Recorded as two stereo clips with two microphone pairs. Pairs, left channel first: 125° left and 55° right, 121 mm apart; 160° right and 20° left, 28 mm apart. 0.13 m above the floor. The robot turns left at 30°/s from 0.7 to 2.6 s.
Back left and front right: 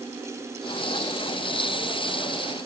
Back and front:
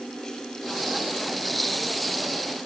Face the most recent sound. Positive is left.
No sound to turn to.